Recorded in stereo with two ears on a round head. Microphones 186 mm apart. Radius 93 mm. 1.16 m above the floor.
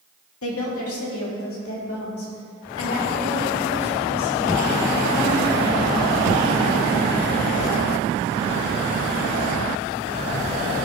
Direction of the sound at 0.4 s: 80° left.